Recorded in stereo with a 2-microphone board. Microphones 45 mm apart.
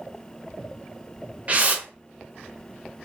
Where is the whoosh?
35° right (ahead or behind), 0.5 m.